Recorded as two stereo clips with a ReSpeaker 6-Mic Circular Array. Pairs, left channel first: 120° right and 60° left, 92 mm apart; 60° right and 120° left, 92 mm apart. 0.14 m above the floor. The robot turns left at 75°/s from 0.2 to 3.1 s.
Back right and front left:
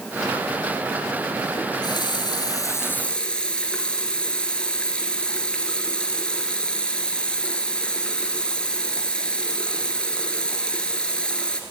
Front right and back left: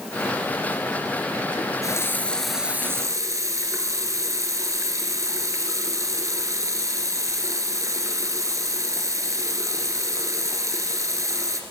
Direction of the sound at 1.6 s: 80° right.